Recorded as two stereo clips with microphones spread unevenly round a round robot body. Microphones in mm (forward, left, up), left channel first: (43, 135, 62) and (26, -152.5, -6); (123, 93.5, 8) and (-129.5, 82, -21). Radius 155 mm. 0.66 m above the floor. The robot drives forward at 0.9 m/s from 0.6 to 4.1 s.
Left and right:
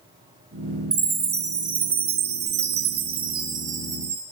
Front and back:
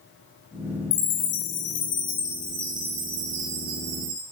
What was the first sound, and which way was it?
A chime, 30° right.